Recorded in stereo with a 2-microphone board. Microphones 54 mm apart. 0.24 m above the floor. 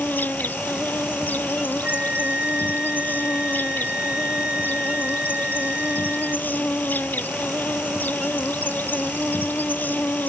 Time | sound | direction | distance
0.0 | an insect | 35° left (ahead or behind) | ?
1.8 | a flute | 25° right (ahead or behind) | ?